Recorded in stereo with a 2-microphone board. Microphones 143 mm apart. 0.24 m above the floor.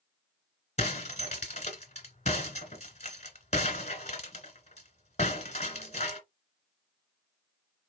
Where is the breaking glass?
50° left (ahead or behind), 1.7 m.